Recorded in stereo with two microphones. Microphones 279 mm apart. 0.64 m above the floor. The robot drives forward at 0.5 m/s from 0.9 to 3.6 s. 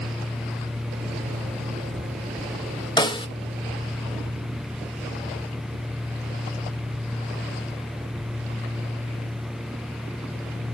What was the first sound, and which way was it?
A snare drum, 15° left (ahead or behind).